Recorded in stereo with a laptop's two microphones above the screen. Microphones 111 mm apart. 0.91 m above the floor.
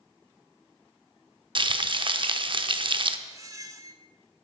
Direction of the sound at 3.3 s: 30° right (ahead or behind).